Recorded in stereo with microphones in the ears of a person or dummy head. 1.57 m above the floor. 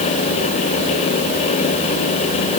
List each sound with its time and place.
Only background noise.